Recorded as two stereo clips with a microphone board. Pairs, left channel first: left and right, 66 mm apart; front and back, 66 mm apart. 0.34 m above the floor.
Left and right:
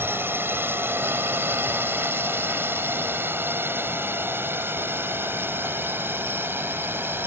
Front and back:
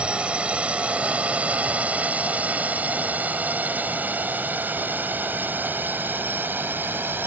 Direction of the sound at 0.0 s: 120° right.